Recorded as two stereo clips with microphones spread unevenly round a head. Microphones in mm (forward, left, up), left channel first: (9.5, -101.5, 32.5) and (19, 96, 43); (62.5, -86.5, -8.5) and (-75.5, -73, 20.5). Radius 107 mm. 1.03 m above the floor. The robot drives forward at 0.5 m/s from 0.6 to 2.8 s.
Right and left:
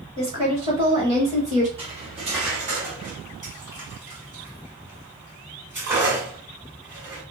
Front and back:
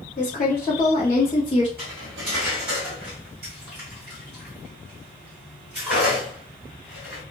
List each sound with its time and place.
0.2 s a woman speaking: 30° left, 1.5 m; by 1.7 s 45° left, 1.1 m
1.8 s cutlery clinking: 150° left, 1.5 m; by 7.2 s 160° left, 1.9 m